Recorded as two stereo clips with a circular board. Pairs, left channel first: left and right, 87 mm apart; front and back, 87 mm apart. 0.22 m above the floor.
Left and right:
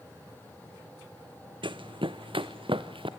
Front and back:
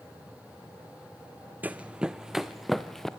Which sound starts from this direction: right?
Running footsteps, at 1.6 s.